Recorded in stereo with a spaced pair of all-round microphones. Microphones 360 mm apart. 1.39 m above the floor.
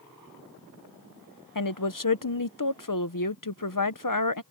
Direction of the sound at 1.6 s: 55° left (ahead or behind).